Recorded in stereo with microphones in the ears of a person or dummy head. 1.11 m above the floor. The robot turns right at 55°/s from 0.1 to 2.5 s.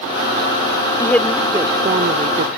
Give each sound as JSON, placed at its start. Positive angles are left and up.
{"t": 1.0, "sound": "a woman speaking", "azimuth_deg": 160}